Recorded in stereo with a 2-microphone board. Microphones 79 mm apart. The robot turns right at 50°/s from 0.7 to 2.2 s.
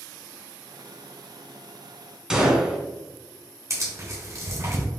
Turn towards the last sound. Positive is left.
turn(degrees=-40)  # may be behind; listen again after turning